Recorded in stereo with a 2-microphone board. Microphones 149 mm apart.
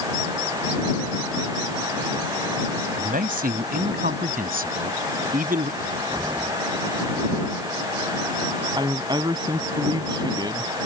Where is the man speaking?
75° right (ahead or behind).